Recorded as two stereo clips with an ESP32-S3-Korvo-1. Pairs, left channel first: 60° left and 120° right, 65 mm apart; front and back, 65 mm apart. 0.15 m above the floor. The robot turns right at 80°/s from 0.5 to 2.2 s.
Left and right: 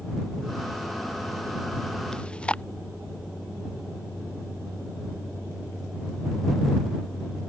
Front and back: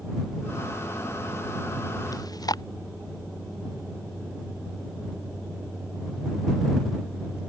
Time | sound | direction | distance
2.1 | chewing | 20° right | ?